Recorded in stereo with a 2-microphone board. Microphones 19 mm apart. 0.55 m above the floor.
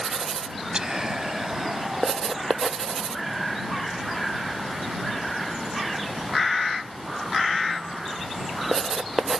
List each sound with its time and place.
0.7 s whispering: 35° right (ahead or behind)